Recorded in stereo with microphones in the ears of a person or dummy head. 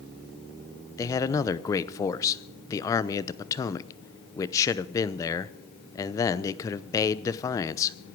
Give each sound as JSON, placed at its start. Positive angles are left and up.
{"t": 1.0, "sound": "a man speaking", "side_deg": 20, "distance_m": 0.8}